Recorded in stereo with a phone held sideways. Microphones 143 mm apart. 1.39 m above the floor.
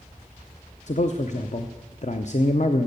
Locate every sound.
0.9 s a man speaking: 55° left (ahead or behind), 0.7 m